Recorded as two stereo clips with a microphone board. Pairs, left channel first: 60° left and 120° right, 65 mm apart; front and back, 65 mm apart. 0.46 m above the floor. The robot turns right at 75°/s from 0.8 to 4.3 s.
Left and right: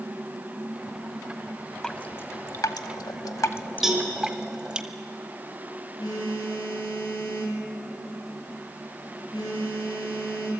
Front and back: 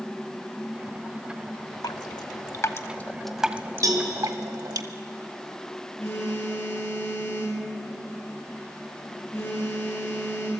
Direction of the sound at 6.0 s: 55° left.